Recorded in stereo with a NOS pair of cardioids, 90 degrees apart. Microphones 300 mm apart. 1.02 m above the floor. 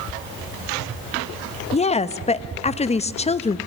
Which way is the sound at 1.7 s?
20° left.